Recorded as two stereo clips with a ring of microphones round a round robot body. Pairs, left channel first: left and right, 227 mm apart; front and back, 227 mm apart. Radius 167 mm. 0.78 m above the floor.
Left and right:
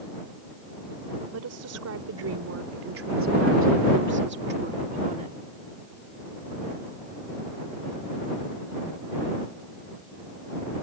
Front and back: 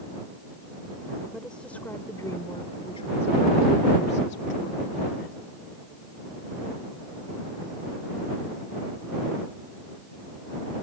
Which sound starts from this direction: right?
A woman speaking, at 1.3 s.